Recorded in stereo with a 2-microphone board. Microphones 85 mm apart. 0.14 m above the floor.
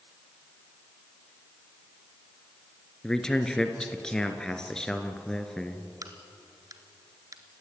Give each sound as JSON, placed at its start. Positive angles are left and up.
{"t": 3.0, "sound": "a man speaking", "side_deg": 10, "distance_m": 1.8}
{"t": 6.0, "sound": "a crack", "side_deg": -45, "distance_m": 1.7}